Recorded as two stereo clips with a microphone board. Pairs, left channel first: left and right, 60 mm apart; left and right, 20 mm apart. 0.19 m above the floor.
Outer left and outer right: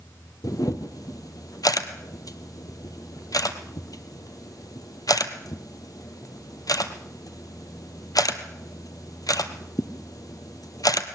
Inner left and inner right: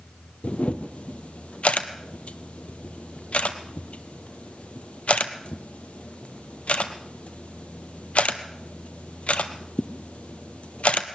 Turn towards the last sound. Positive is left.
turn(degrees=80)